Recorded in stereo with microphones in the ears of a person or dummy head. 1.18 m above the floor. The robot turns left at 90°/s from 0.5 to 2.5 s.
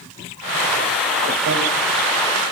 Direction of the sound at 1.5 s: 60° right (ahead or behind).